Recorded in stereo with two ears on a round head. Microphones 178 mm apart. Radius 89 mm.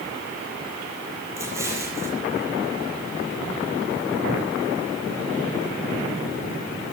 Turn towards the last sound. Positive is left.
turn(degrees=-15)  # may be behind; listen again after turning